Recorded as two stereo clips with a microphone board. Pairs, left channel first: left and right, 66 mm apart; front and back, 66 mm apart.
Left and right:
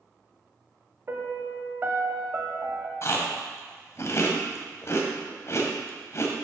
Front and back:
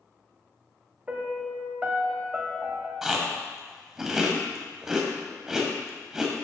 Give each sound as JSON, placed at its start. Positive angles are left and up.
{"t": 1.1, "sound": "a piano", "azimuth_deg": -120, "distance_m": 1.0}
{"t": 3.0, "sound": "chewing", "azimuth_deg": 100, "distance_m": 1.2}